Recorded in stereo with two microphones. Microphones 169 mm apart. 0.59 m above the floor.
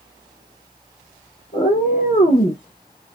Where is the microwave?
I don't hear a microwave.